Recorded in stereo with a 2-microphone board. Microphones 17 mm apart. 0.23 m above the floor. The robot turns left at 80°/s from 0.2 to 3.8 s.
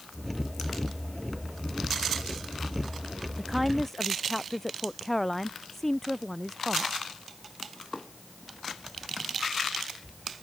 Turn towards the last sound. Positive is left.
turn(degrees=170)